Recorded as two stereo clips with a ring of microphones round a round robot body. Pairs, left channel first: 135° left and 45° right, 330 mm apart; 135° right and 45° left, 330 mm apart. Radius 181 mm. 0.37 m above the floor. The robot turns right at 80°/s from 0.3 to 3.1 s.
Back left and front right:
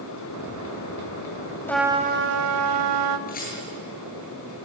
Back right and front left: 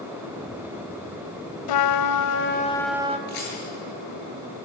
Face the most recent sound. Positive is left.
turn(degrees=-160)